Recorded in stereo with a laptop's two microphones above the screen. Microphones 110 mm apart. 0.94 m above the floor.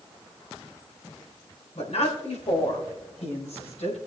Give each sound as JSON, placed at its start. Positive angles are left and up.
{"t": 1.8, "sound": "a woman speaking", "side_deg": 75, "distance_m": 4.0}